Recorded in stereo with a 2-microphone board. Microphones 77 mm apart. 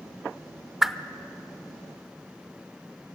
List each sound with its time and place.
0.8 s a whoosh: 5° right (ahead or behind), 0.6 m